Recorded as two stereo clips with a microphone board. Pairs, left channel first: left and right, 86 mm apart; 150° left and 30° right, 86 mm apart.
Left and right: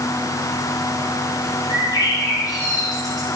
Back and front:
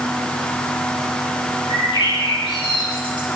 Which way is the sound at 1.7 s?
135° left.